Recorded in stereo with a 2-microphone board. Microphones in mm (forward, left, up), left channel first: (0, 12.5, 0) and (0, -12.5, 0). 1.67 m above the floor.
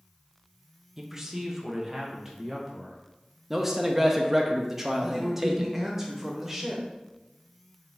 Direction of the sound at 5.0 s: 10° right (ahead or behind).